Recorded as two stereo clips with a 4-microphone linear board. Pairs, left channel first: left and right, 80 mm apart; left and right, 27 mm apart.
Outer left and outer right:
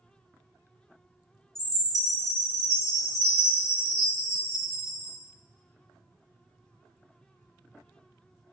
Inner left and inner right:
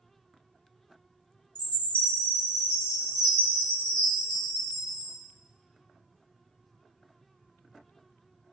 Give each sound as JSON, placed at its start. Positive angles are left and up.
{"t": 1.6, "sound": "a chime", "side_deg": 45, "distance_m": 1.7}